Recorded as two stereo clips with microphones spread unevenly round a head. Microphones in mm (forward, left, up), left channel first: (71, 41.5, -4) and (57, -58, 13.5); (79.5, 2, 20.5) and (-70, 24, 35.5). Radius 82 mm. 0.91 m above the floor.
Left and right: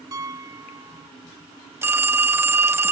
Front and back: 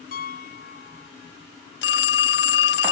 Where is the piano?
45° right.